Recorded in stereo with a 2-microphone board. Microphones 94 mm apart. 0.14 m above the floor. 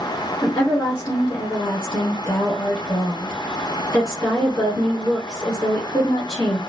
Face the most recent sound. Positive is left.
turn(degrees=15)  # may be behind; listen again after turning